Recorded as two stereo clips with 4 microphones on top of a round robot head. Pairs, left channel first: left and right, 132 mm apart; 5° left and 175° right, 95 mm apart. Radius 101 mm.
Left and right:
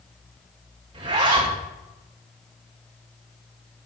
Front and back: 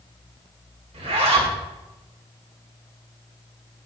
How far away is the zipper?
About 2.5 m.